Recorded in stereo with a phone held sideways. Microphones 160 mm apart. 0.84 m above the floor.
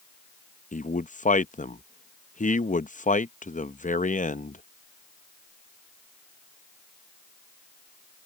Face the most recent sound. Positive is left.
turn(degrees=55)  # may be behind; listen again after turning